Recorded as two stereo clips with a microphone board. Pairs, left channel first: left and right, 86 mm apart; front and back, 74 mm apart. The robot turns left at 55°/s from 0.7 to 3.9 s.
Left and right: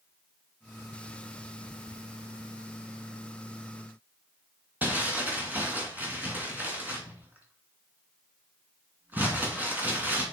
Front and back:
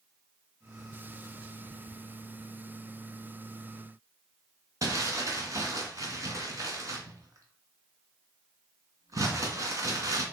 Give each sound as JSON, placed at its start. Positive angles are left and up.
{"t": 4.8, "sound": "crumpling", "azimuth_deg": -155, "distance_m": 2.5}